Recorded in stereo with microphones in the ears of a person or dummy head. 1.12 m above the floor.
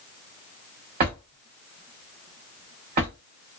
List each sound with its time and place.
1.0 s a drawer: 45° right (ahead or behind), 0.8 m